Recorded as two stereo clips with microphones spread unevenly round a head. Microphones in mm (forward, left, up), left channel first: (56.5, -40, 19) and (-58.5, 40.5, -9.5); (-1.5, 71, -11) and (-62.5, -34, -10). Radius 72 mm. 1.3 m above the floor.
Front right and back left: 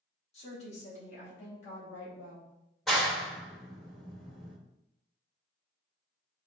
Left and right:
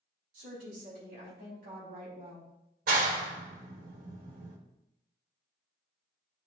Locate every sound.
0.3 s a woman speaking: 85° right, 3.5 m; by 2.5 s 75° right, 2 m
2.9 s a clap: 125° right, 1.1 m